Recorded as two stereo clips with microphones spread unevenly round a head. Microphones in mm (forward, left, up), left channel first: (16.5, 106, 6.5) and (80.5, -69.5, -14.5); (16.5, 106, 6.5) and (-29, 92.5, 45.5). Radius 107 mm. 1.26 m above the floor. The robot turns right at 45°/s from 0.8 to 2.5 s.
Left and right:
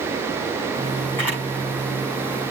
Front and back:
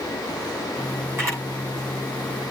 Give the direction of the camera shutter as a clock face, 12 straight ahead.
6 o'clock.